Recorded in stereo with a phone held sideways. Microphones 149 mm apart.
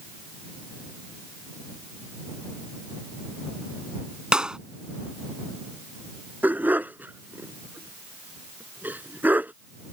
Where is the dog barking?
10° right (ahead or behind).